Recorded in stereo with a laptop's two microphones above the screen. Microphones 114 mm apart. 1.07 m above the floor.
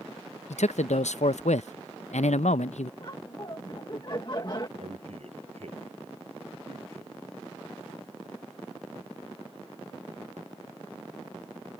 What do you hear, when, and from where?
0.5 s a man speaking: 85° left
3.0 s laughter: 40° left (ahead or behind)
4.8 s a man speaking: 70° right (ahead or behind)